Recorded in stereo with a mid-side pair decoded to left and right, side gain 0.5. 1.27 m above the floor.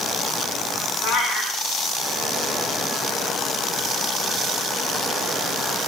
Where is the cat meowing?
70° left, 7.5 m.